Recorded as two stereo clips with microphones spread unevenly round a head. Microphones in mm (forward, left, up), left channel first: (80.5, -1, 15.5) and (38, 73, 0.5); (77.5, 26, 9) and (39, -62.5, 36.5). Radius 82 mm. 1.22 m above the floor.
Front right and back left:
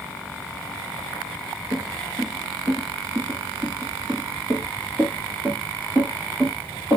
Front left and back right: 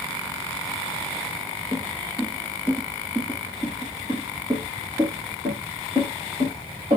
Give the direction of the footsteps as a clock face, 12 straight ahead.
7 o'clock.